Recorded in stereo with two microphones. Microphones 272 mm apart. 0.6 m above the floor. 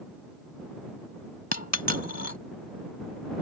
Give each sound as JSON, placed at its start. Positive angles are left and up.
{"t": 1.5, "sound": "a dropped coin", "side_deg": 80}